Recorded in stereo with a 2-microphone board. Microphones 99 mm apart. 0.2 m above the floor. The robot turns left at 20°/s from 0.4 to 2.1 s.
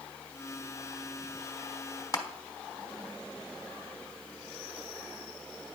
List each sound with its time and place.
2.1 s crushing: 35° left (ahead or behind), 0.8 m